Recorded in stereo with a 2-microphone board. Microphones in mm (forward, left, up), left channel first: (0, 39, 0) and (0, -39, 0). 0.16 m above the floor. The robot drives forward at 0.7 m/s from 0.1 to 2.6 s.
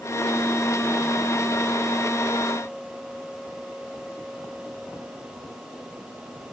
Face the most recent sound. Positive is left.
No sound to turn to.